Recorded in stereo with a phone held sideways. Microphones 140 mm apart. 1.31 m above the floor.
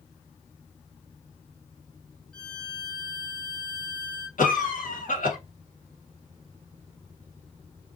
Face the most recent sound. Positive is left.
turn(degrees=70)  # may be behind; listen again after turning